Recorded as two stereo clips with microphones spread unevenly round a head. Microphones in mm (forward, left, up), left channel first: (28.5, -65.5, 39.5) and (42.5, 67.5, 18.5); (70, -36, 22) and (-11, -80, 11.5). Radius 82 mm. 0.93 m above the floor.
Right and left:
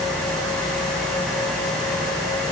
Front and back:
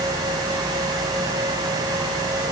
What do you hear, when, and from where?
Only background noise.